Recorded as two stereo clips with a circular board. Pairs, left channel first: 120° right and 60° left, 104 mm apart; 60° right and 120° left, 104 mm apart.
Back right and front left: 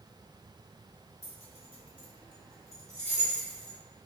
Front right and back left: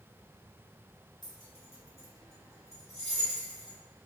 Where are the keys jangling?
105° right, 1.0 m; by 3.8 s 45° right, 1.8 m.